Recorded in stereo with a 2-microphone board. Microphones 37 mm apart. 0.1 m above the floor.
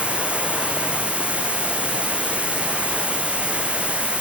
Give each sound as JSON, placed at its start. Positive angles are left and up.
{"t": 0.0, "sound": "running water", "side_deg": -35, "distance_m": 1.4}